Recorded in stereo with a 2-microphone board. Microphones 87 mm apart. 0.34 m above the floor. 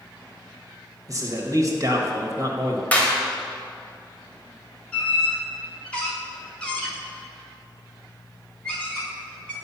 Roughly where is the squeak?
Centre.